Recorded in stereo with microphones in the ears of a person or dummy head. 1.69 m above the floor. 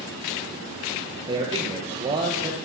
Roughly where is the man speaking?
Right.